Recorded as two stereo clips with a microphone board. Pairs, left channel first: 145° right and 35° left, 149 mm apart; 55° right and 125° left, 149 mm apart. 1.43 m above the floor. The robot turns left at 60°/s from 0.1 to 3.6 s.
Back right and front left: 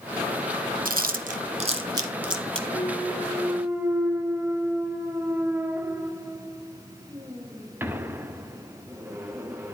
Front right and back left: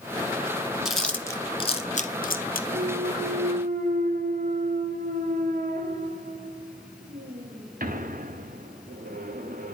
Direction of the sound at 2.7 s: 165° left.